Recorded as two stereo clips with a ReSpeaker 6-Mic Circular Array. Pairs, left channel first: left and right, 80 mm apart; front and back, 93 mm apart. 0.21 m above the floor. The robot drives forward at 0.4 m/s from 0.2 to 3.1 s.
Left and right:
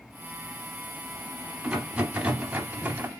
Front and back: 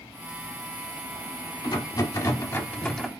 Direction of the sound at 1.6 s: 20° right.